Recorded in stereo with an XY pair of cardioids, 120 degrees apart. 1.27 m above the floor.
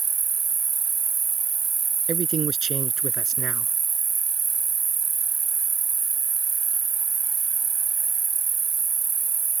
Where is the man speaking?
50° right.